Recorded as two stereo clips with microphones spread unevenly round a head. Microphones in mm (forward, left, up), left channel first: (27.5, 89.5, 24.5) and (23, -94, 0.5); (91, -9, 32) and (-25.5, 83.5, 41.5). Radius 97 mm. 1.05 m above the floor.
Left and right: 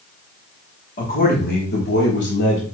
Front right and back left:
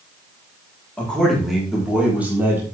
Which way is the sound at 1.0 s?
45° left.